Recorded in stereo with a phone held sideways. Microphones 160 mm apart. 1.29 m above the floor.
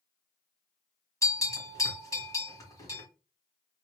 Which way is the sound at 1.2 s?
20° left (ahead or behind).